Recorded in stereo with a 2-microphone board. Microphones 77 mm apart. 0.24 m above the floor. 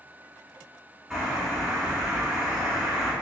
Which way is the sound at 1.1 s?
5° right (ahead or behind).